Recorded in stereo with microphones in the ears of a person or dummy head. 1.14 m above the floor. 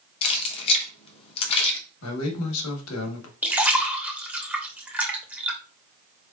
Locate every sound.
0.2 s keys jangling: 35° left (ahead or behind), 1.0 m
2.0 s a man speaking: 90° left, 1.2 m
3.4 s a splash: 10° right (ahead or behind), 0.7 m